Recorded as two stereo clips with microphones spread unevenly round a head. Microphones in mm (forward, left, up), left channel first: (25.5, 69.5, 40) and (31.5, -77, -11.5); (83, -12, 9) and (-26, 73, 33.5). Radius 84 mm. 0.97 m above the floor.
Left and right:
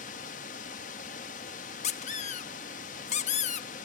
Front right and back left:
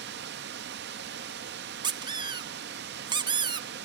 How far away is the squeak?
About 0.6 m.